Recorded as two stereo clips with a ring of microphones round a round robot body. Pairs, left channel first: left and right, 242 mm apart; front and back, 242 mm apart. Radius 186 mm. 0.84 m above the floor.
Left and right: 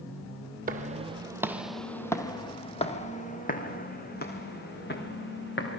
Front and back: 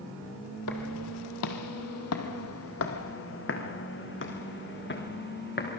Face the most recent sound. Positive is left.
turn(degrees=45)